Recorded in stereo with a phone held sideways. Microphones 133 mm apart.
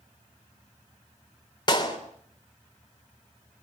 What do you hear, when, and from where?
1.7 s a clap: 35° left (ahead or behind), 3.5 m